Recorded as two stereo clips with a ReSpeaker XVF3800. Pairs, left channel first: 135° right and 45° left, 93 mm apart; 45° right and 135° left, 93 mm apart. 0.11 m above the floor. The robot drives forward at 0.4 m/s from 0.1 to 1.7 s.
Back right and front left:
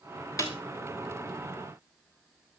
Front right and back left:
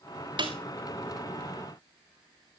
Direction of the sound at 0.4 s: 170° left.